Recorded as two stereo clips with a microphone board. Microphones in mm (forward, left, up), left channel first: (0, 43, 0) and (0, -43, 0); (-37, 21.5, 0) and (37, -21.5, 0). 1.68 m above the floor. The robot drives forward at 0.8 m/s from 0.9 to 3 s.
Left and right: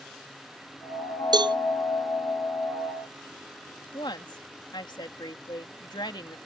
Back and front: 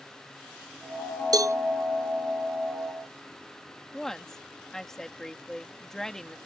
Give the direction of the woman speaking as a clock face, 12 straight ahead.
10 o'clock.